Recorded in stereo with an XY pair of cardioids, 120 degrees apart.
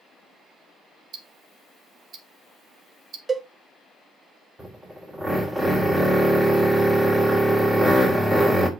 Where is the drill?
15° right, 3 m.